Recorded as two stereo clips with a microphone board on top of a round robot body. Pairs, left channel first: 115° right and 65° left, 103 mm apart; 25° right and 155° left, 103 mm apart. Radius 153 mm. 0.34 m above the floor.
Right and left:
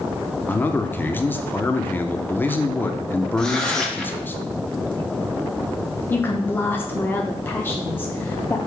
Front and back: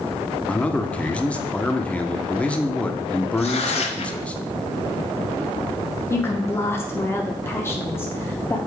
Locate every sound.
0.5 s a man speaking: 80° right, 0.9 m
3.4 s tearing paper: 30° right, 1.1 m
6.1 s a woman speaking: 65° right, 1.0 m